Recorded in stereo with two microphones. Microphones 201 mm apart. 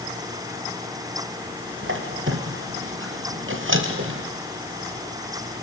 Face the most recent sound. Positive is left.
turn(degrees=-70)  # may be behind; listen again after turning